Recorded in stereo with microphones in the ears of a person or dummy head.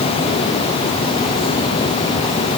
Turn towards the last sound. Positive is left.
No sound to turn to.